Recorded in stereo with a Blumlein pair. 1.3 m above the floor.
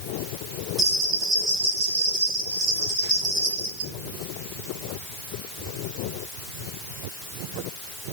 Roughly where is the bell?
Ahead right.